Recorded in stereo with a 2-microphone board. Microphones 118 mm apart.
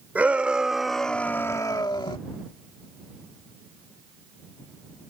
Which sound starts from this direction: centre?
A shout, at 0.1 s.